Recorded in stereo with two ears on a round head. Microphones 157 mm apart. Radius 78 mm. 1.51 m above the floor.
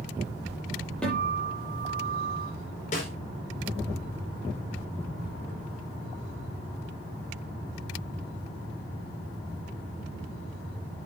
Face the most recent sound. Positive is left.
turn(degrees=45)  # may be behind; listen again after turning